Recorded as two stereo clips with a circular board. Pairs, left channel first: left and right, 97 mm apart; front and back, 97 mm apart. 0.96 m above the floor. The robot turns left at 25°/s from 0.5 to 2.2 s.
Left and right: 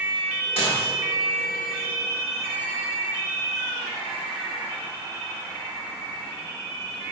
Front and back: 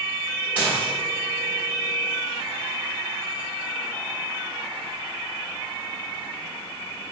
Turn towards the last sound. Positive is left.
turn(degrees=65)